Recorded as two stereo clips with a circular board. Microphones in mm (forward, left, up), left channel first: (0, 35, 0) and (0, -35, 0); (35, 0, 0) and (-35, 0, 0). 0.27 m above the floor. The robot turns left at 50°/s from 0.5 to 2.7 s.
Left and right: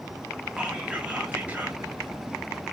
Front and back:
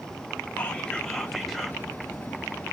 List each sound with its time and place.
0.6 s whispering: 40° right, 0.9 m; by 1.8 s 100° right, 0.9 m